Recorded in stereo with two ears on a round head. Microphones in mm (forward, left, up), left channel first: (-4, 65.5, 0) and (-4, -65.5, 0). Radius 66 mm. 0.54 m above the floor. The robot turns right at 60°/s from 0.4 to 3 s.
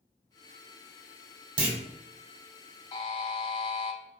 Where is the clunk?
35° right (ahead or behind), 1.3 m; by 1.8 s 30° right (ahead or behind), 1.3 m.